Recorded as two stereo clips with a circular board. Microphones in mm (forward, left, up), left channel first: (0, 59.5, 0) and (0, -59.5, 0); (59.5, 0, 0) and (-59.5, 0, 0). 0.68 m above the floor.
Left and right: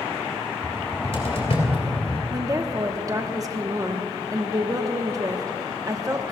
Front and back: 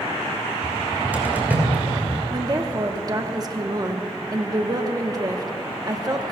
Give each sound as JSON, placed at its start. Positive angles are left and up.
{"t": 0.6, "sound": "a cupboard door", "azimuth_deg": 105, "distance_m": 3.0}
{"t": 2.3, "sound": "a woman speaking", "azimuth_deg": -140, "distance_m": 1.0}